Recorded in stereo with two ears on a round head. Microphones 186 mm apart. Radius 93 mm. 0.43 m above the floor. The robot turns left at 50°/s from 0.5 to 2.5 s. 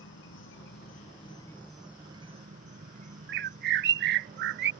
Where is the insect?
65° left; by 4.8 s 35° right.